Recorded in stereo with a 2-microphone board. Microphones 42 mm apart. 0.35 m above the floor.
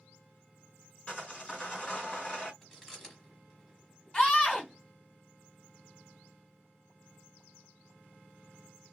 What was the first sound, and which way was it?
Sawing, 25° left (ahead or behind).